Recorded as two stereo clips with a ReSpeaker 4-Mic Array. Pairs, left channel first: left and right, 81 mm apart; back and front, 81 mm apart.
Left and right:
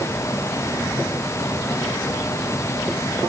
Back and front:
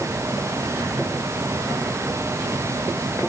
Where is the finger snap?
I don't hear a finger snap.